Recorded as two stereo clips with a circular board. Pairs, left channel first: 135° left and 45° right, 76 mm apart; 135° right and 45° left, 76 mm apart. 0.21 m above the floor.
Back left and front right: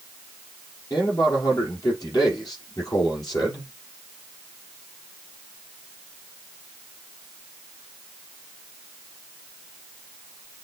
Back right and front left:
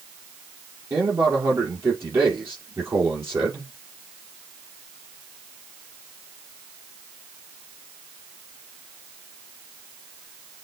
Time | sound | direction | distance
0.9 | a man speaking | 100° left | 5.5 m